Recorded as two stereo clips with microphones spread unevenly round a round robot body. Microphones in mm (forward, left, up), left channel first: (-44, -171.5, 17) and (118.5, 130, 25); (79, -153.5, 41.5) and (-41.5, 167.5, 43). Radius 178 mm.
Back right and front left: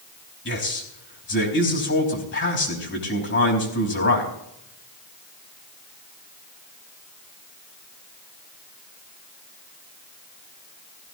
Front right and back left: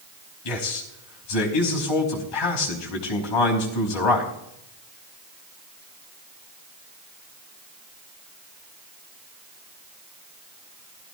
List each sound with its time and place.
0.5 s a man speaking: 60° right, 4.5 m